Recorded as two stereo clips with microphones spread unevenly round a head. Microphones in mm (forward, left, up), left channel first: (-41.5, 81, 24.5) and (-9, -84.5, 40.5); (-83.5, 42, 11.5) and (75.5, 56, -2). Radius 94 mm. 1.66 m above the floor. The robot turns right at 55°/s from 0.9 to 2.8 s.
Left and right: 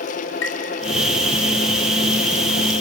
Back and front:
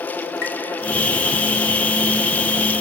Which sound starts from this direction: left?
Tapping, at 0.4 s.